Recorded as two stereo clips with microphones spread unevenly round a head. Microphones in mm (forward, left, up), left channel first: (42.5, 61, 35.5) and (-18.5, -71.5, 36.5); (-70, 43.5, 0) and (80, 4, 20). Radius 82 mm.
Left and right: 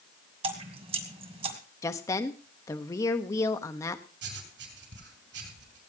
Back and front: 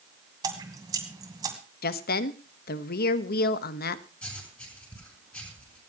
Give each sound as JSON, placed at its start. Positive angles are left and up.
{"t": 0.4, "sound": "dripping", "azimuth_deg": -70, "distance_m": 2.5}
{"t": 1.8, "sound": "a woman speaking", "azimuth_deg": 135, "distance_m": 1.1}
{"t": 4.2, "sound": "writing", "azimuth_deg": -110, "distance_m": 6.0}